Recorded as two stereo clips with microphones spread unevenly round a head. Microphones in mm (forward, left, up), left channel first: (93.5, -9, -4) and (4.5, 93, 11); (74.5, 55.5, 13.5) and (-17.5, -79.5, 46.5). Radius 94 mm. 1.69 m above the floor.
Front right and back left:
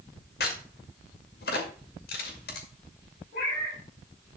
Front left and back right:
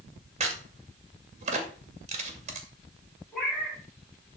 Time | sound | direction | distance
0.4 | a crack | 80° right | 2 m
3.3 | a cat meowing | 35° right | 6 m